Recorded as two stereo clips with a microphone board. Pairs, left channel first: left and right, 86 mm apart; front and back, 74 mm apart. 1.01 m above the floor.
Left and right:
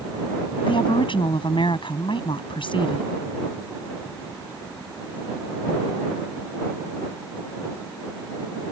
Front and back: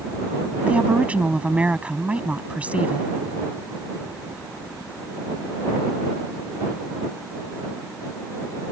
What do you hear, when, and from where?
0.7 s a woman speaking: 105° left